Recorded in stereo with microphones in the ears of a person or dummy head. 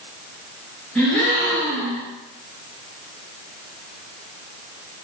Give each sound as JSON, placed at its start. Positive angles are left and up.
{"t": 0.9, "sound": "a gasp", "side_deg": 5, "distance_m": 1.9}